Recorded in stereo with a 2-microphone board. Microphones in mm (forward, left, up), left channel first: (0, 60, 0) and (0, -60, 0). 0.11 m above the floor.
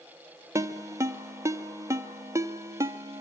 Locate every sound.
0.6 s a ringtone: 20° right (ahead or behind), 1.4 m